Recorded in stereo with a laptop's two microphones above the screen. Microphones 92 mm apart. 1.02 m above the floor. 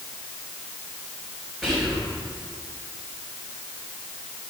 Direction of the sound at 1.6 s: 5° right (ahead or behind).